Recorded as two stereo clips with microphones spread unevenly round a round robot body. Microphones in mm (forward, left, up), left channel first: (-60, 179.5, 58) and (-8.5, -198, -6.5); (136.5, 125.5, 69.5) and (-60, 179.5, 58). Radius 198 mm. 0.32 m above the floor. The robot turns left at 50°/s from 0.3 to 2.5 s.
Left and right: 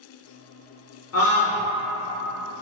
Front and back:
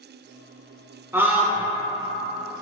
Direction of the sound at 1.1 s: 110° left.